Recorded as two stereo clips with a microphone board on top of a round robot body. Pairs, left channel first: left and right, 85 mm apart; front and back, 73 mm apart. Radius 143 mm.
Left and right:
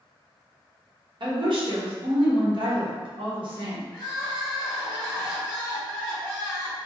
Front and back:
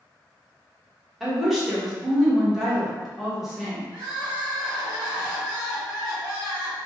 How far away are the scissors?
I don't hear scissors.